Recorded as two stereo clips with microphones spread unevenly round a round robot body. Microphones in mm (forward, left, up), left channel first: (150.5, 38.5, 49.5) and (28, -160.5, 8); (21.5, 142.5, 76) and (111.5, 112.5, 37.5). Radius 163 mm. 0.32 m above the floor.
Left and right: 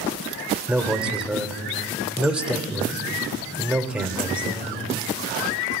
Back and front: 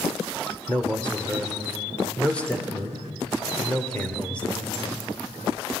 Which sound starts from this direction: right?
A man speaking, at 0.7 s.